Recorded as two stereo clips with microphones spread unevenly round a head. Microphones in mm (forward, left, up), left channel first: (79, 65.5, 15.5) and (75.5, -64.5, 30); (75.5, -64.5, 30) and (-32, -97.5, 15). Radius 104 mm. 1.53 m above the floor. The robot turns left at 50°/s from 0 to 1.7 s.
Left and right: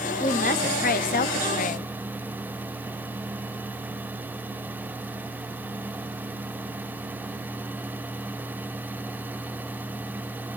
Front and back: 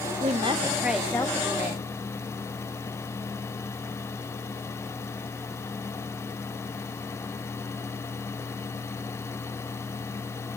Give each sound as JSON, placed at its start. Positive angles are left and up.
{"t": 0.2, "sound": "a woman speaking", "azimuth_deg": 145, "distance_m": 0.8}